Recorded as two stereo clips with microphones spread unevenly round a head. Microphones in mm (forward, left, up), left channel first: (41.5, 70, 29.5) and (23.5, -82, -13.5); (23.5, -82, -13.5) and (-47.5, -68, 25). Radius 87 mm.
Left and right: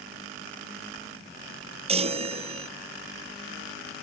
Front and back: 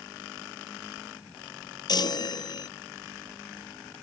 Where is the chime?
45° right.